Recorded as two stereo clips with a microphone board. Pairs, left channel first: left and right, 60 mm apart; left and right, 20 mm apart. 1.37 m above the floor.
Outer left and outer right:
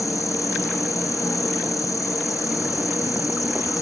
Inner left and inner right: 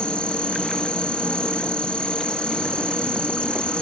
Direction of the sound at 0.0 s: 60° left (ahead or behind).